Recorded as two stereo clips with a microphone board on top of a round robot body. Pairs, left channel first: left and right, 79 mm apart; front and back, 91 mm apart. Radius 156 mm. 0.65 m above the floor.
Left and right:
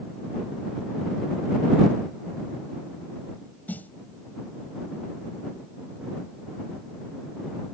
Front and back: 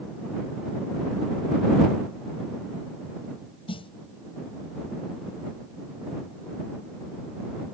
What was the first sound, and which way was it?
A snare drum, 20° left.